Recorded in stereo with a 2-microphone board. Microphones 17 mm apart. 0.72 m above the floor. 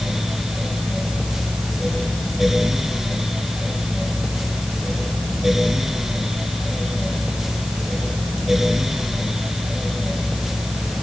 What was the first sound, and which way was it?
Only background noise.